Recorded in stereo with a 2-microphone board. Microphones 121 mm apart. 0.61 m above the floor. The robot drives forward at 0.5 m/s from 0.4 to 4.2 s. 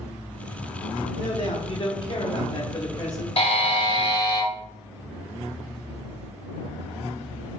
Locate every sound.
1.2 s a man speaking: 45° left (ahead or behind), 0.8 m; by 3.3 s 30° left (ahead or behind), 1.1 m
3.4 s a buzzer: 55° left (ahead or behind), 0.7 m; by 4.5 s 40° left (ahead or behind), 0.9 m